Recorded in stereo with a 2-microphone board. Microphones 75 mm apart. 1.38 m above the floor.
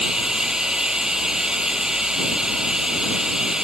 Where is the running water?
10° right (ahead or behind).